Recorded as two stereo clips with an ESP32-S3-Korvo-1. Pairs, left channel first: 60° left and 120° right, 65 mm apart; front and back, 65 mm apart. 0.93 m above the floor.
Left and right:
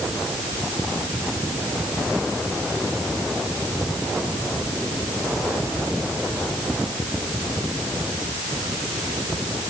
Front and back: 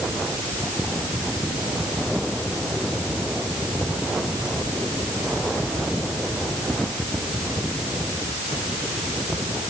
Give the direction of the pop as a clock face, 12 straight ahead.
I don't hear a pop.